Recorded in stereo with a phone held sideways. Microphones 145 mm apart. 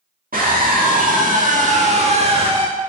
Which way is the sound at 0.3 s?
80° right.